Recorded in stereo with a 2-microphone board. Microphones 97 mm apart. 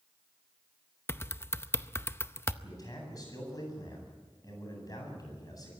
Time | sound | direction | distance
1.1 | typing on a keyboard | 25° left (ahead or behind) | 0.6 m
2.6 | a man speaking | 40° left (ahead or behind) | 8.5 m